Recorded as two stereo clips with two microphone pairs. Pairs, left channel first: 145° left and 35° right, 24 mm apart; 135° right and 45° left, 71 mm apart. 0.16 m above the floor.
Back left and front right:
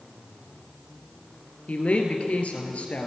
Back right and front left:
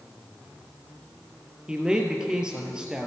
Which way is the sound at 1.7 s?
120° left.